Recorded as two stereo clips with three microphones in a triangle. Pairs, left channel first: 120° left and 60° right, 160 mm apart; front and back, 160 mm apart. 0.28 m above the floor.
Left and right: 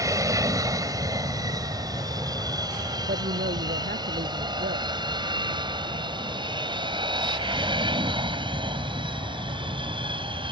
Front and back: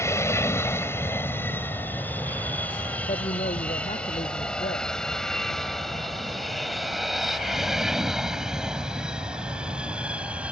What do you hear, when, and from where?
0.0 s an aircraft: 40° right; by 10.5 s 100° right
3.0 s a woman speaking: 45° right